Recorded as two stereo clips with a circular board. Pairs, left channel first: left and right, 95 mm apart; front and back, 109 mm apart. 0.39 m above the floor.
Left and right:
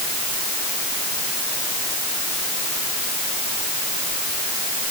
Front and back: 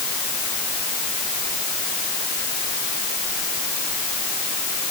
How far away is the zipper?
No zipper in this recording.